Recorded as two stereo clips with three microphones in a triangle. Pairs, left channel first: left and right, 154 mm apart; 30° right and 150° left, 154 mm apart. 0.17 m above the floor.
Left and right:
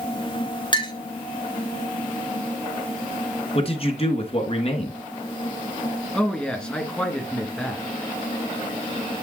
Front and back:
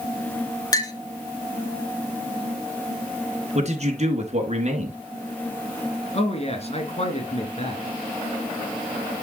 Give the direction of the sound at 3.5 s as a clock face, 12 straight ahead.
8 o'clock.